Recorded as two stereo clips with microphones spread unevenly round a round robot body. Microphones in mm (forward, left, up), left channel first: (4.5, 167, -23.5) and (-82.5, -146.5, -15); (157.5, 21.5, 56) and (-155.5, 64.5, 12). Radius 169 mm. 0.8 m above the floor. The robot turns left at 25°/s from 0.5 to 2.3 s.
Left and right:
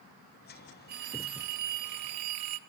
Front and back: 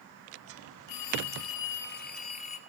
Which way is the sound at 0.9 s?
45° right.